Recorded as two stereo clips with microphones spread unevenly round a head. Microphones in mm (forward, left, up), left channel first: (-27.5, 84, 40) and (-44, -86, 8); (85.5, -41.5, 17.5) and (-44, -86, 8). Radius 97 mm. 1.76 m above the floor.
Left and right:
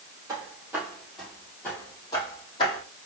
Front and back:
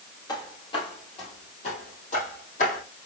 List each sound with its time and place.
0.3 s footsteps: 20° right, 2.5 m; by 2.8 s 35° left, 3.5 m